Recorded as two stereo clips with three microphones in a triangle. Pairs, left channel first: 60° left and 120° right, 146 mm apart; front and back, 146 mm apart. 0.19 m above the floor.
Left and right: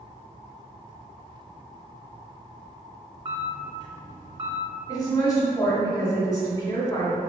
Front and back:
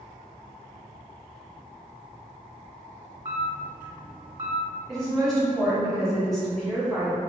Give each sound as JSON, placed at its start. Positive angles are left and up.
{"t": 3.2, "sound": "a camera shutter", "azimuth_deg": -165, "distance_m": 1.8}
{"t": 4.9, "sound": "a woman speaking", "azimuth_deg": 85, "distance_m": 1.1}